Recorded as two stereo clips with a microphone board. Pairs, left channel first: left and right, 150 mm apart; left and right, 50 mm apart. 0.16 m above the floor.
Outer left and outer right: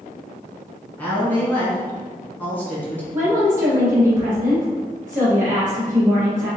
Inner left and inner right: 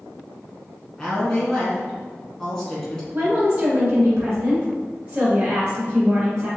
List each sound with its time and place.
1.0 s a woman speaking: 10° left (ahead or behind), 1.3 m
3.1 s a woman speaking: 15° right (ahead or behind), 1.5 m